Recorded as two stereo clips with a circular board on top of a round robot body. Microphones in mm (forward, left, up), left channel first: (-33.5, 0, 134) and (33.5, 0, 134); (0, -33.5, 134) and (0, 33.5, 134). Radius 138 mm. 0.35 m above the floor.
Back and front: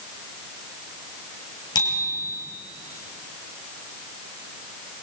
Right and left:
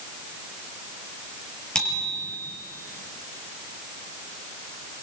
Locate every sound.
1.8 s a bicycle bell: 170° right, 7 m